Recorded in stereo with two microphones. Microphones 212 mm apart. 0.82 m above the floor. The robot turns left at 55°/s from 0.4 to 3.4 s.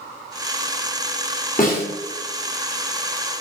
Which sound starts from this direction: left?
A snare drum, at 1.6 s.